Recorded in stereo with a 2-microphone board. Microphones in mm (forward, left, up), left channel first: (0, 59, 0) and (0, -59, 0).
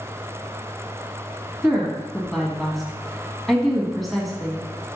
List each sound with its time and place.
1.6 s a woman speaking: centre (ahead or behind), 1.4 m